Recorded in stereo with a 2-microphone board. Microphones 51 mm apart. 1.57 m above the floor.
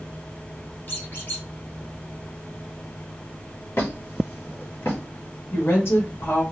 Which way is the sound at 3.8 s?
50° left (ahead or behind).